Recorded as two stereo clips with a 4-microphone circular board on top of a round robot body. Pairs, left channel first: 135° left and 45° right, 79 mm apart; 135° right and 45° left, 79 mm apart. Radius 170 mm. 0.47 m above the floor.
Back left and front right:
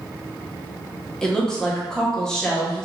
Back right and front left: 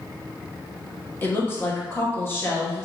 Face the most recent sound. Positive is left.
turn(degrees=-150)